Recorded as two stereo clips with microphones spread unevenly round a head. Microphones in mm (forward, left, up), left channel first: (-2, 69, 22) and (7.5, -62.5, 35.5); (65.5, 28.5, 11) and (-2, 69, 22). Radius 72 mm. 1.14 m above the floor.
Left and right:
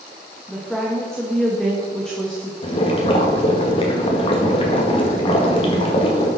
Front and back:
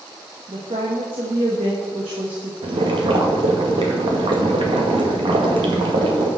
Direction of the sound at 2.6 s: 140° left.